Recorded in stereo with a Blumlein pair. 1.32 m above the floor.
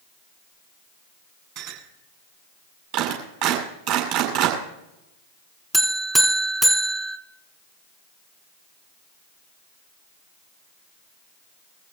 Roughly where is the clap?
Ahead right.